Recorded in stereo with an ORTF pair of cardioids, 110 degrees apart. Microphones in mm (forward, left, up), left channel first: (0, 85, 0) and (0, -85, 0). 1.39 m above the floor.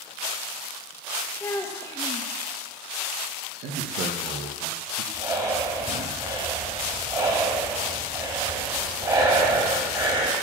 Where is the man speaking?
70° right, 1.2 m.